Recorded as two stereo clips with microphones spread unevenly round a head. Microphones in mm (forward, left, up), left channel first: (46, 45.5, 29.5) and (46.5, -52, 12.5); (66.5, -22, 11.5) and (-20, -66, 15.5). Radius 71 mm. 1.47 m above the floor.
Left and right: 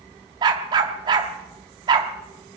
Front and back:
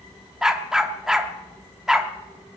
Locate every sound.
0.4 s a dog barking: 80° right, 1.1 m